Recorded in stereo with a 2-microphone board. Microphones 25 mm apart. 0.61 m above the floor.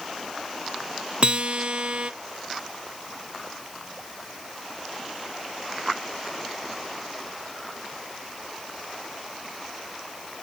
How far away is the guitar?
About 0.6 m.